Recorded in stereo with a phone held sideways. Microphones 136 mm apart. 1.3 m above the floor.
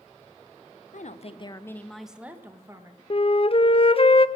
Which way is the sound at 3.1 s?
45° left (ahead or behind).